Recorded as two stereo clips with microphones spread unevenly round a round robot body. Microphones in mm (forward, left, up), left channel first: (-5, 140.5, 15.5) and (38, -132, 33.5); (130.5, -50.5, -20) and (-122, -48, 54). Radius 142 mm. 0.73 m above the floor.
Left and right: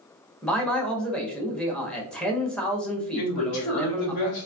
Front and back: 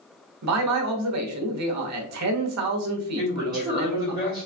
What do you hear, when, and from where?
0.4 s a man speaking: straight behind, 1.0 m
3.1 s a man speaking: 100° left, 1.7 m